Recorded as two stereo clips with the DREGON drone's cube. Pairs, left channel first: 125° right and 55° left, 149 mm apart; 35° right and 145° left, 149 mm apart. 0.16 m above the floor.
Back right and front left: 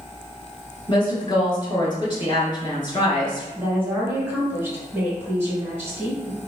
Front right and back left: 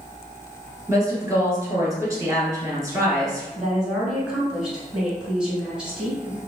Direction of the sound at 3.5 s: 75° left.